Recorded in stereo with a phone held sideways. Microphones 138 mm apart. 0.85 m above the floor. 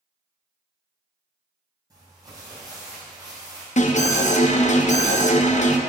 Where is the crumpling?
30° right (ahead or behind), 2 m.